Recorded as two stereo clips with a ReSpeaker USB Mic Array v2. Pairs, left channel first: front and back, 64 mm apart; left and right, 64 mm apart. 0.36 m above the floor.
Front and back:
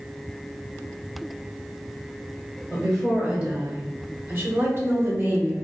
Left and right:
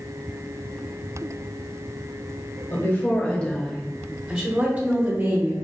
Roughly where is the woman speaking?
Left.